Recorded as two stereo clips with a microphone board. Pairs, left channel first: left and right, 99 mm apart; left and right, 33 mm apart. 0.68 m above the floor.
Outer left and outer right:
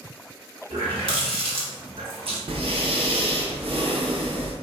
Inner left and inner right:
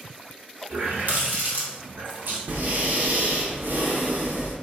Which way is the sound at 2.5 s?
70° right (ahead or behind).